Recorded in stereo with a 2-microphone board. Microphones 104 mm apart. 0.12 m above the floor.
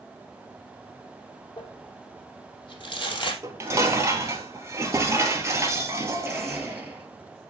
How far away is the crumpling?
About 3.5 m.